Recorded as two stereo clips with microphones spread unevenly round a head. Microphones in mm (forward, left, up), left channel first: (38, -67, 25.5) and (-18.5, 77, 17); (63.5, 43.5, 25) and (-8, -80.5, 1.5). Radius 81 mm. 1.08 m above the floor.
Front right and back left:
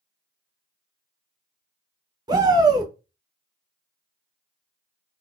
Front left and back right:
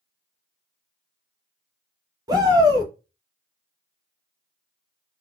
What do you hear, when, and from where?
2.3 s a shout: 175° left, 0.8 m